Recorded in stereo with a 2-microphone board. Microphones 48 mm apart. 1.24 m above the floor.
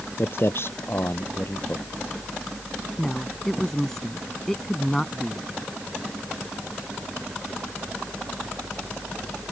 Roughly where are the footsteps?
Left.